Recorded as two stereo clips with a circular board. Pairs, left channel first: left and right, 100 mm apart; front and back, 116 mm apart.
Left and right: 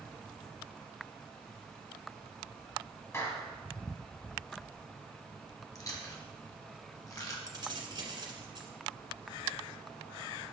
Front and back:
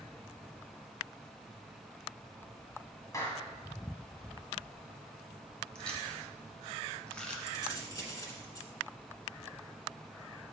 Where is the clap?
45° left, 1.7 m.